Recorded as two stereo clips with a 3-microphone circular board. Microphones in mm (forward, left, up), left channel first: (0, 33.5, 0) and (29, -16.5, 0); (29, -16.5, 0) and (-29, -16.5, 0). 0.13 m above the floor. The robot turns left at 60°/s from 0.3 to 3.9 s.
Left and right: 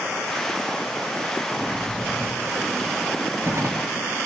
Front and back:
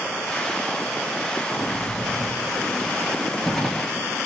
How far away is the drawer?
About 1.7 m.